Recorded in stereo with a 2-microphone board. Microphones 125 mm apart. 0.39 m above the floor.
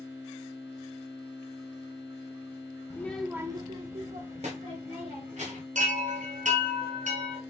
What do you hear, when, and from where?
2.9 s a child speaking: 25° left (ahead or behind), 0.6 m; by 5.7 s 75° right (ahead or behind), 2 m
5.8 s a chime: 80° right, 1.2 m